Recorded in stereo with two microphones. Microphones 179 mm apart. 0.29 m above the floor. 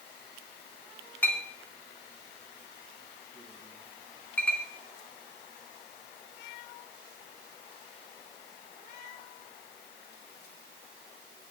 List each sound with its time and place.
1.2 s a clink: 10° left (ahead or behind), 1.8 m